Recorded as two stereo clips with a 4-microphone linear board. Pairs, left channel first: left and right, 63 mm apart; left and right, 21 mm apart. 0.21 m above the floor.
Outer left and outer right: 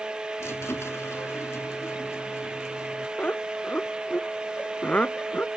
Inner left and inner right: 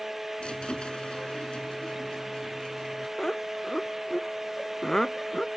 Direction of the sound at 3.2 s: 20° left (ahead or behind).